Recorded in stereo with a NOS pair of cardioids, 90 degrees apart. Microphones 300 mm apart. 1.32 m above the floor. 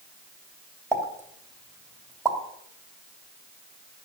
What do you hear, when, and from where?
0.9 s a pop: 10° right, 3 m